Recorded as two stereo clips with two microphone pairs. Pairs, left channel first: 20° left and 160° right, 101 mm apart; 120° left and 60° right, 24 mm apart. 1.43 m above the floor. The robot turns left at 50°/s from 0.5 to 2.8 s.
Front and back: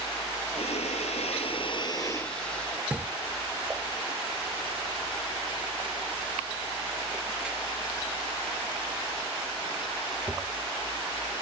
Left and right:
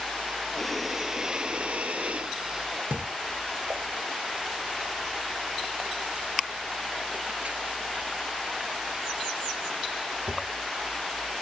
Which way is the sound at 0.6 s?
40° left.